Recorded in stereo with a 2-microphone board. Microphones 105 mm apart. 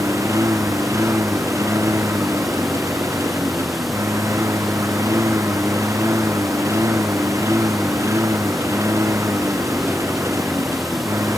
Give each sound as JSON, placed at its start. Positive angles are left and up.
{"t": 0.0, "sound": "a lawn mower", "side_deg": -25}